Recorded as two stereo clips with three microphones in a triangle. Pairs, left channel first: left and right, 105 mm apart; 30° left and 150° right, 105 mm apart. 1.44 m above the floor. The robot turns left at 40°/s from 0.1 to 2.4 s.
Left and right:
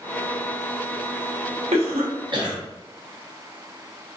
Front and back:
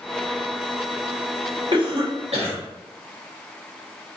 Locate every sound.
1.7 s a cough: 105° right, 1.1 m; by 2.6 s 135° right, 1.1 m